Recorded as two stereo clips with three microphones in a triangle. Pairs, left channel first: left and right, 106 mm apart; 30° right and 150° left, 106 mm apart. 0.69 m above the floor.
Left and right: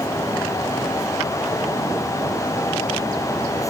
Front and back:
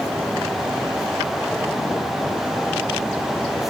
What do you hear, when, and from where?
Only background noise.